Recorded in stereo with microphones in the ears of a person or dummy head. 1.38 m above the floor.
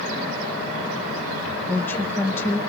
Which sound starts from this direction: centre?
A woman speaking, at 1.7 s.